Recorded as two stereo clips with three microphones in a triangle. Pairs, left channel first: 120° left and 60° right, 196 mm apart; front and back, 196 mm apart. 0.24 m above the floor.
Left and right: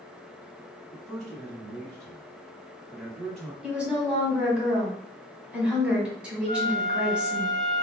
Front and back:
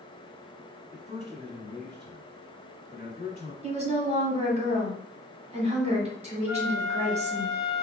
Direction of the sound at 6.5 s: 105° right.